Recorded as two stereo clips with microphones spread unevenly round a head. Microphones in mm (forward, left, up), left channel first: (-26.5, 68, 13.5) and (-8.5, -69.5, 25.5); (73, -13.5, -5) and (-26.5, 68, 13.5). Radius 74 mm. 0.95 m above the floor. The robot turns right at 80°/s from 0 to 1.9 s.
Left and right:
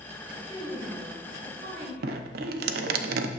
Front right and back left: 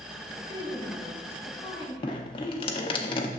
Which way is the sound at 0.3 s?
140° left.